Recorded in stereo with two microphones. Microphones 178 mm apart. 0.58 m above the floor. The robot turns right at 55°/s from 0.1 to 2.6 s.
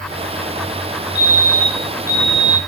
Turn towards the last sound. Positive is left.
turn(degrees=-170)